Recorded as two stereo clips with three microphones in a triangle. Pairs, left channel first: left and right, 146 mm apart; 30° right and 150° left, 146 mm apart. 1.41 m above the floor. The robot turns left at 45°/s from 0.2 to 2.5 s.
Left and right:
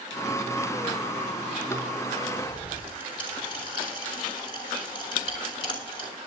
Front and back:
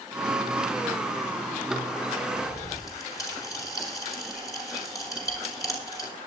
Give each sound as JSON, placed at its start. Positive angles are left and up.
{"t": 2.4, "sound": "a pop", "azimuth_deg": 40, "distance_m": 5.0}